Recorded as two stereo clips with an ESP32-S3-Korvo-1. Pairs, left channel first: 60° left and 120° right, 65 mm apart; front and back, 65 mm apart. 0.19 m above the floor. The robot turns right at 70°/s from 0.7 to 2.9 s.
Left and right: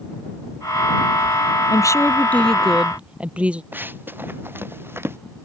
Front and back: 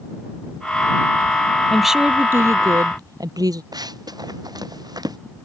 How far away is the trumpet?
I don't hear a trumpet.